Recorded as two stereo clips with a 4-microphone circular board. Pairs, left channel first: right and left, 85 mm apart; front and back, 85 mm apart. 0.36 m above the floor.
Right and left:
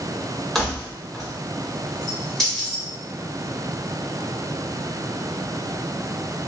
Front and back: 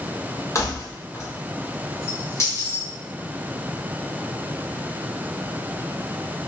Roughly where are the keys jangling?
Ahead.